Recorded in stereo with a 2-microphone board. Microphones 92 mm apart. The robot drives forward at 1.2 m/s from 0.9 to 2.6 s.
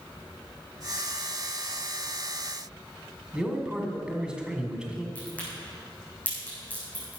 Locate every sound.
3.3 s a man speaking: 10° right (ahead or behind), 1.7 m
5.2 s a crack: 15° left (ahead or behind), 4.5 m